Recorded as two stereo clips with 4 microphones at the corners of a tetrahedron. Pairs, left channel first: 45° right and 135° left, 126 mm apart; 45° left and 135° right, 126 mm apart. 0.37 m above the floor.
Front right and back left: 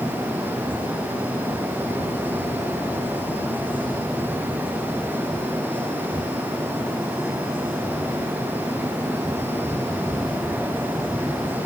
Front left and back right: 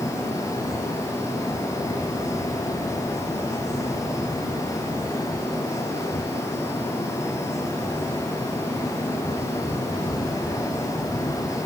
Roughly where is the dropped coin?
No dropped coin in this recording.